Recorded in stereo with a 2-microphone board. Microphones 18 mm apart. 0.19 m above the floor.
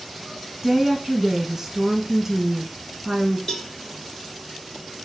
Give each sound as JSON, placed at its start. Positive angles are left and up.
{"t": 0.6, "sound": "a woman speaking", "side_deg": -25, "distance_m": 1.5}
{"t": 3.5, "sound": "a cowbell", "side_deg": 50, "distance_m": 1.0}